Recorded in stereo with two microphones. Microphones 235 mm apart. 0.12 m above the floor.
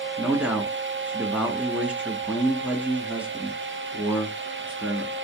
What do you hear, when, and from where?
0.2 s a man speaking: 5° right (ahead or behind), 1.3 m